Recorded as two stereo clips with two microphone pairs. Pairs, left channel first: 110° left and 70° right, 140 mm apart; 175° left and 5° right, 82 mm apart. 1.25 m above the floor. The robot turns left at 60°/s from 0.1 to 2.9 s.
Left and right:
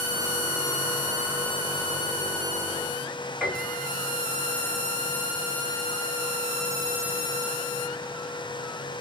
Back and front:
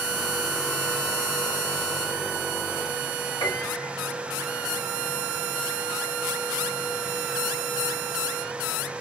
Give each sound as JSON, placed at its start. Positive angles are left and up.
{"t": 3.4, "sound": "a piano", "azimuth_deg": -160, "distance_m": 2.0}